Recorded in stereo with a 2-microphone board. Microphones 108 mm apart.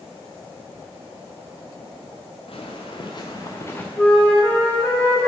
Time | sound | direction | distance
2.5 | footsteps | 60° left (ahead or behind) | 1.3 m
4.0 | a flute | 15° left (ahead or behind) | 0.9 m